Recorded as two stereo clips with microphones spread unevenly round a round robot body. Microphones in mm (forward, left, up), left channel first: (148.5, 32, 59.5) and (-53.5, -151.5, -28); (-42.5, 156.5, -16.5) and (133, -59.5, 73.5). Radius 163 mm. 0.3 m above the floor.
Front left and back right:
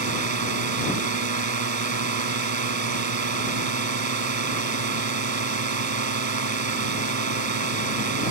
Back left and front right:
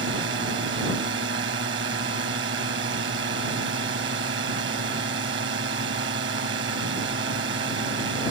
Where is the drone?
110° right.